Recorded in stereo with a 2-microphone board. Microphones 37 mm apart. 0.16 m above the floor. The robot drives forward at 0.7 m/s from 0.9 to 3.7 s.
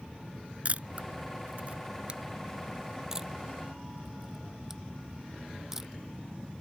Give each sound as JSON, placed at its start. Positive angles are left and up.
{"t": 0.7, "sound": "a camera shutter", "side_deg": -45}